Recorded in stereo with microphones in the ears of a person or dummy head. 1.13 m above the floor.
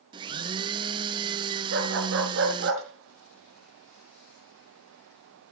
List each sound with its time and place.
0.1 s a blender: 30° right (ahead or behind), 0.7 m
1.7 s a dog barking: 65° right (ahead or behind), 3.5 m